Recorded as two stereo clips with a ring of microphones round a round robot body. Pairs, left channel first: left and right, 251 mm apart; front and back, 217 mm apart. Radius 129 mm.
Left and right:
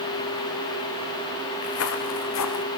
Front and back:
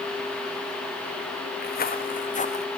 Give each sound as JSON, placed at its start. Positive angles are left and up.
{"t": 1.6, "sound": "footsteps", "azimuth_deg": 50, "distance_m": 2.5}